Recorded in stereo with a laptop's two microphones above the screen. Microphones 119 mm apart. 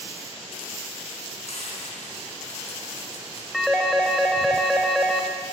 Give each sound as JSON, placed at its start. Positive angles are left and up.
{"t": 1.5, "sound": "frying", "side_deg": 60, "distance_m": 5.5}
{"t": 3.5, "sound": "a phone ringing", "side_deg": 0, "distance_m": 3.5}